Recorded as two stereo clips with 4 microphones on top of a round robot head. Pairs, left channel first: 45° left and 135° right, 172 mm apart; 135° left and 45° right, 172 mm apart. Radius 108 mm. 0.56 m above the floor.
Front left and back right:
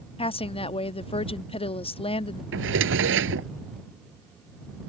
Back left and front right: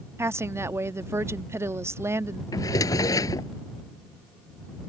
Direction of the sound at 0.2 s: 20° left.